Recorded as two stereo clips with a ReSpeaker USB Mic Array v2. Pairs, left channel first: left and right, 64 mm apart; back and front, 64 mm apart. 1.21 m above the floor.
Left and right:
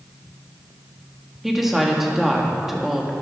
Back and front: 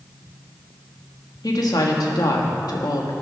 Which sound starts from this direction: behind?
A woman speaking, at 1.4 s.